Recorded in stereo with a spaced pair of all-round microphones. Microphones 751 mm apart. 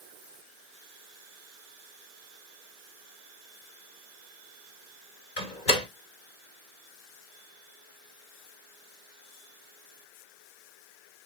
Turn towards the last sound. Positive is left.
turn(degrees=80)